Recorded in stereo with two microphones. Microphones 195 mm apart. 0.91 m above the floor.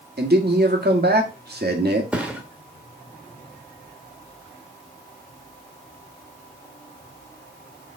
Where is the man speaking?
55° right (ahead or behind), 1.7 m.